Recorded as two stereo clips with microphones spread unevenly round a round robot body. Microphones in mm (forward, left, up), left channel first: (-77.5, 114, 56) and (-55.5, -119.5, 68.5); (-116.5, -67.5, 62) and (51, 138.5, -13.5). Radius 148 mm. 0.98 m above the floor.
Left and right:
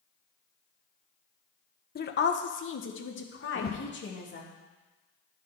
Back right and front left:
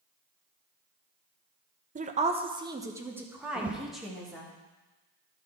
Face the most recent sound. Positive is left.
turn(degrees=120)